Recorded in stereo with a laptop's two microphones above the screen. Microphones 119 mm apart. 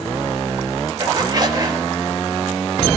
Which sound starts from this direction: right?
A zipper, at 1.0 s.